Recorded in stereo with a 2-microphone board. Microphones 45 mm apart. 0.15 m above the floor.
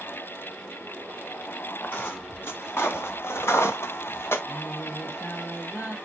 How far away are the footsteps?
About 3 m.